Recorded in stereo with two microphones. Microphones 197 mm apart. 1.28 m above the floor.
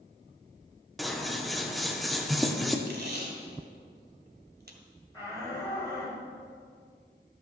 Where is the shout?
15° left (ahead or behind), 5 m.